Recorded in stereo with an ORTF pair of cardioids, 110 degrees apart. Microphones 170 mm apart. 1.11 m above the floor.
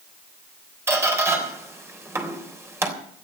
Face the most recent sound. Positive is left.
turn(degrees=-15)